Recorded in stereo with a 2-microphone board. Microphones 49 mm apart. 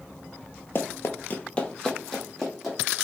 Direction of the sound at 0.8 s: 45° left (ahead or behind).